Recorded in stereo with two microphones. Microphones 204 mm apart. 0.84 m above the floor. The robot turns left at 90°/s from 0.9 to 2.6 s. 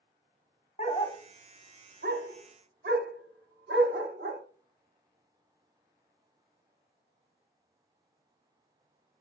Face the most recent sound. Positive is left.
turn(degrees=-55)  # may be behind; listen again after turning